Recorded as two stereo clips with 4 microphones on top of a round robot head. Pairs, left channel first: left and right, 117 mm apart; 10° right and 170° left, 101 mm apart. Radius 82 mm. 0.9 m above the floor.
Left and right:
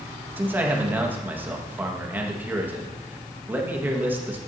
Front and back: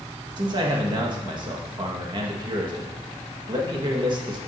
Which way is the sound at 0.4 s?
160° right.